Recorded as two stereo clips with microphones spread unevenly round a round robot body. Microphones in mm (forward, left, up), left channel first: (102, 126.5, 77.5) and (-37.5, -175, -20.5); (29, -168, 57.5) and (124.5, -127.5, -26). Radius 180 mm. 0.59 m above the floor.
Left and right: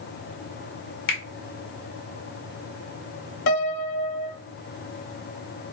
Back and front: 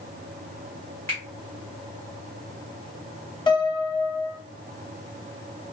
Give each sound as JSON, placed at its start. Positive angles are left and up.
{"t": 1.1, "sound": "a finger snap", "azimuth_deg": 105, "distance_m": 1.6}
{"t": 3.5, "sound": "a piano", "azimuth_deg": 105, "distance_m": 0.9}